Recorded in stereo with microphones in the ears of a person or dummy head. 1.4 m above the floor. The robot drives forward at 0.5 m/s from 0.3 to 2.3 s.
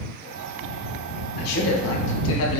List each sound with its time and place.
1.4 s a man speaking: 50° left (ahead or behind), 1.3 m; by 2.6 s 70° left (ahead or behind), 1.1 m